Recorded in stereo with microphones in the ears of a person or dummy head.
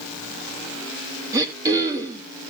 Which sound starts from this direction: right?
Throat clearing, at 1.3 s.